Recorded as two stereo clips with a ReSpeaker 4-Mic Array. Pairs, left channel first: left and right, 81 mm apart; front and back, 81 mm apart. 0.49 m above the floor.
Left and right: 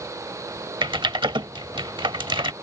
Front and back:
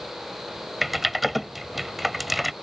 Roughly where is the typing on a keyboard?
Right.